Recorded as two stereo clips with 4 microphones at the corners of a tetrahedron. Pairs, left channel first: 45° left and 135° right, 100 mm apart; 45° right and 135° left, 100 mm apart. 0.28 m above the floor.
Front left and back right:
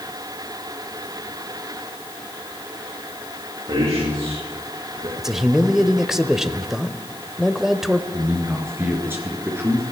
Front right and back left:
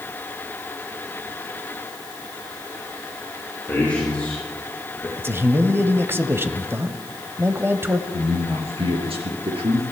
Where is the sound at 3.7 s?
120° right, 5 m; by 5.1 s 125° right, 4.5 m.